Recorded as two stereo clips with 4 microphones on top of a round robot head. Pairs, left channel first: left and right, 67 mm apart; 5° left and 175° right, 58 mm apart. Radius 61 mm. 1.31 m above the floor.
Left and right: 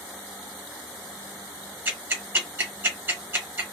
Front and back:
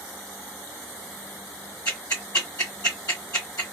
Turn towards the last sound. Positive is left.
turn(degrees=-50)